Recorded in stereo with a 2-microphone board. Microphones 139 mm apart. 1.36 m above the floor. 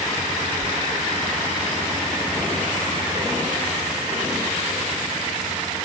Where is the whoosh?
45° left (ahead or behind).